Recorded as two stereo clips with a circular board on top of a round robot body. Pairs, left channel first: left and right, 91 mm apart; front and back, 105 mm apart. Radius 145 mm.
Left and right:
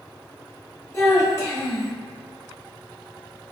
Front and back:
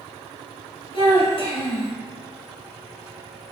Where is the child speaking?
30° left, 1.5 m.